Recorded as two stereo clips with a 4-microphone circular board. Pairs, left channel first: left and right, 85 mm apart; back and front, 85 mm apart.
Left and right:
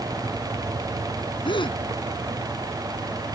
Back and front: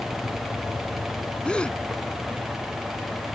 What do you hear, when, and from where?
1.4 s a gasp: 100° left